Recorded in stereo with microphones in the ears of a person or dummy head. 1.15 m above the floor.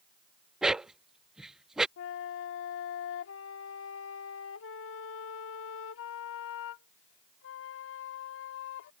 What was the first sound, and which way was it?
A dog barking, 5° right (ahead or behind).